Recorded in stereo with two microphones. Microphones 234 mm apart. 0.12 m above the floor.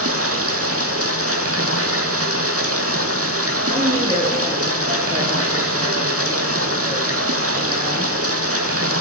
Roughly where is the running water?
Right.